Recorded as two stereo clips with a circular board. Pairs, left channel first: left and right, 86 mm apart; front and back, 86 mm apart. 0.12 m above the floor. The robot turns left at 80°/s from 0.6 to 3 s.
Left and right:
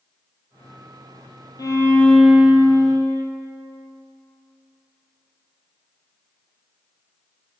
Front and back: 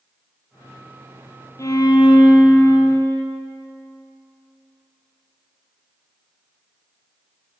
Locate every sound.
1.6 s a violin: 50° left, 1.0 m; by 3.2 s 60° right, 1.0 m